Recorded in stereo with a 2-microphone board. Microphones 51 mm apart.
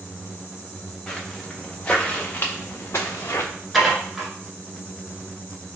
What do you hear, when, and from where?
1.1 s footsteps: 5° left (ahead or behind), 1.8 m; by 3.5 s 75° left (ahead or behind), 1.1 m
3.7 s dishes clattering: centre (ahead or behind), 1.2 m